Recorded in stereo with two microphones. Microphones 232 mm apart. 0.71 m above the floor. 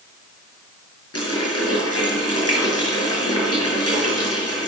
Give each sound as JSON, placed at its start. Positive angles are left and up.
{"t": 1.1, "sound": "a running tap", "side_deg": 75, "distance_m": 7.5}